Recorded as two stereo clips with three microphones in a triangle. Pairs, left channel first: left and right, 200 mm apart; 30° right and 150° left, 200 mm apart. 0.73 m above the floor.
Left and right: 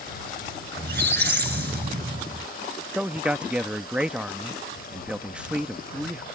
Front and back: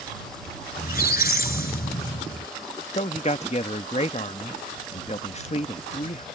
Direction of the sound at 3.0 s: 10° right.